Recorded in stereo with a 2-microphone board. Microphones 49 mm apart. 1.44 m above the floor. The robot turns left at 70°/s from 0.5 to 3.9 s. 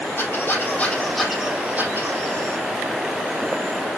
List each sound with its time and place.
0.2 s a squeak: 50° left, 4 m; by 2.6 s 100° right, 4 m